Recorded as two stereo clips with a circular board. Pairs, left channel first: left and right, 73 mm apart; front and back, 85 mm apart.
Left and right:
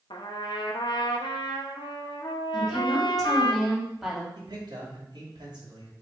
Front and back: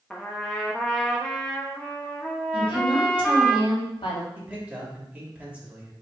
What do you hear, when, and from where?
0.1 s a trumpet: 80° left, 1.0 m
2.5 s a woman speaking: straight ahead, 2.5 m
4.3 s a man speaking: 110° right, 2.5 m